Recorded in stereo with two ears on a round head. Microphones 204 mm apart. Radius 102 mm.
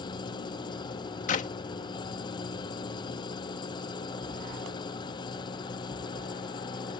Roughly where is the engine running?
Left.